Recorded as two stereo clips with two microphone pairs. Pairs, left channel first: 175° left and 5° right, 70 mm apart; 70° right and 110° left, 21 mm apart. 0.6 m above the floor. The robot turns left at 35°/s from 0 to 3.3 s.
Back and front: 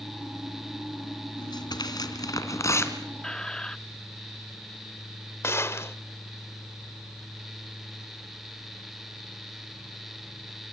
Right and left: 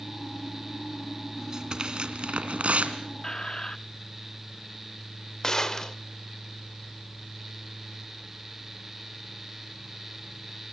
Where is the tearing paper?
Straight behind, 2.5 m; by 3.0 s 120° left, 2.5 m.